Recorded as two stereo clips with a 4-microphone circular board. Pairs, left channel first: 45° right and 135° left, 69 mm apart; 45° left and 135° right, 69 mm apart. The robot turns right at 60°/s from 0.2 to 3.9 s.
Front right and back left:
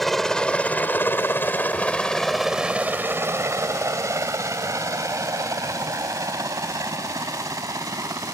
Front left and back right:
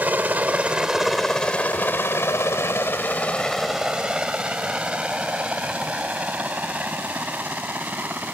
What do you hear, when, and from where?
0.0 s a helicopter: 130° right; by 8.3 s 160° left